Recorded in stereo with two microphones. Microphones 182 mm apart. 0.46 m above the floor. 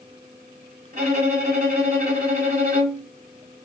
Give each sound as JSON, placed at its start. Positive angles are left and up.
{"t": 0.9, "sound": "a violin", "side_deg": -55, "distance_m": 2.5}